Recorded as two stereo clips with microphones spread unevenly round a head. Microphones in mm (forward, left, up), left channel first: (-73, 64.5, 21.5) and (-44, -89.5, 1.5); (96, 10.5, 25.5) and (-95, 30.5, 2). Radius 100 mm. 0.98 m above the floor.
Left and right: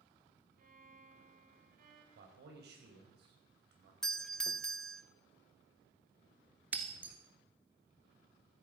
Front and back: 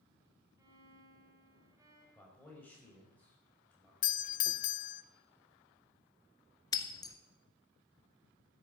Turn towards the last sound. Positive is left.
turn(degrees=5)